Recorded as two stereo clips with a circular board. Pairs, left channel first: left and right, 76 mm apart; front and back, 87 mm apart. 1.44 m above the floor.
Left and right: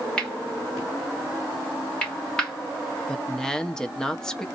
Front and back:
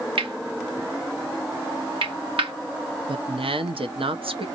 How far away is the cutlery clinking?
About 2.5 m.